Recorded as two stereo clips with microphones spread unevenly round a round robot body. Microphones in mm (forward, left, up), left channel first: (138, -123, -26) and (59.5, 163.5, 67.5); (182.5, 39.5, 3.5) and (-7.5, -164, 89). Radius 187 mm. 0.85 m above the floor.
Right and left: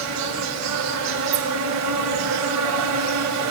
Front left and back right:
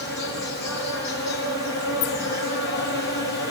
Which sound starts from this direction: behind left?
An insect, at 0.0 s.